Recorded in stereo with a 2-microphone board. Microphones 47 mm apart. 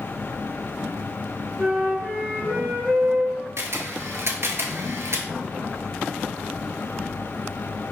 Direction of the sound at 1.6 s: 15° right (ahead or behind).